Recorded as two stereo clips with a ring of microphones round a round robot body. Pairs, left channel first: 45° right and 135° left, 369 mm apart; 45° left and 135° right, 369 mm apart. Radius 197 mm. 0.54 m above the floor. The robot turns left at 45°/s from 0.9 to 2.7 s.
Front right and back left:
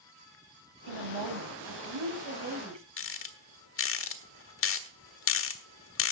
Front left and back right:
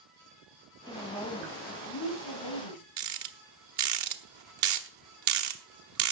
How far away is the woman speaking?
About 3.5 m.